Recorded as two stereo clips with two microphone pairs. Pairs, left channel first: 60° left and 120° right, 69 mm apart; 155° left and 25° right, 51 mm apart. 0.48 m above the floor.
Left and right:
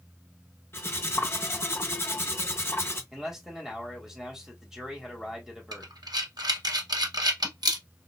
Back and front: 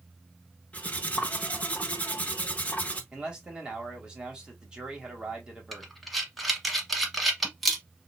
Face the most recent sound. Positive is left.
turn(degrees=-115)